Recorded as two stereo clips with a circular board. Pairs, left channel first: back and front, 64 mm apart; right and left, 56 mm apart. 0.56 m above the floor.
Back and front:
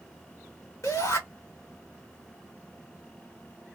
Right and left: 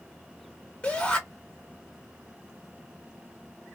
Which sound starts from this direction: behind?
A shout, at 0.8 s.